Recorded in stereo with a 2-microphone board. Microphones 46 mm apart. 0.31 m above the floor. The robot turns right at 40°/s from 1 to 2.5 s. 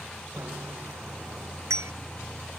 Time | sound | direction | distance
0.4 | a bicycle bell | 70° right (ahead or behind) | ?